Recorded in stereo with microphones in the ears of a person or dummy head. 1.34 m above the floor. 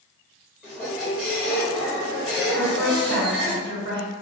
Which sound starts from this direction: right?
A woman speaking, at 2.5 s.